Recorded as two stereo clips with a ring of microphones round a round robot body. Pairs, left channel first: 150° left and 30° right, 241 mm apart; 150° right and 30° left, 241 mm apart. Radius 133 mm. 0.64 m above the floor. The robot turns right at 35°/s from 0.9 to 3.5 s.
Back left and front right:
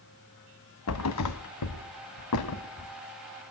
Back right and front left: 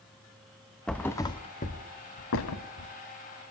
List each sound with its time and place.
0.9 s a thud: 125° left, 1.2 m; by 2.9 s 165° right, 1.2 m